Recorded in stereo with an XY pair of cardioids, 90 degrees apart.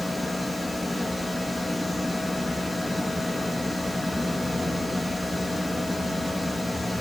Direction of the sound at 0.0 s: 5° left.